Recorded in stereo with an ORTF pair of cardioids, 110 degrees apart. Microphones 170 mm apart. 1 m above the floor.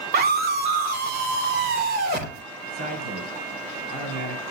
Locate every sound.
0.1 s a scream: 65° right, 2 m; by 2.4 s 75° right, 3.5 m
2.7 s a man speaking: 70° right, 3.5 m